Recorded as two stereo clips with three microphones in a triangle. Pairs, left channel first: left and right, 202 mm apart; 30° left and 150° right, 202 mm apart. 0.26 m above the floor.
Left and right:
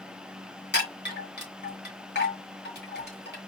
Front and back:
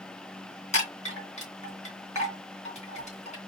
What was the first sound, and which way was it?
A chime, 80° left.